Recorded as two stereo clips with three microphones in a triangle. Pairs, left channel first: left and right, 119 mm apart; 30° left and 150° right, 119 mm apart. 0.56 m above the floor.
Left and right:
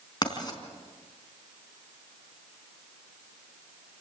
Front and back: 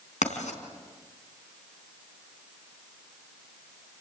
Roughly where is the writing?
Ahead left.